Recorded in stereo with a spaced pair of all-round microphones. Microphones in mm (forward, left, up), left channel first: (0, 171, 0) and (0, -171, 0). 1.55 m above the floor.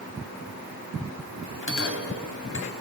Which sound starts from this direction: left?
A bell, at 1.6 s.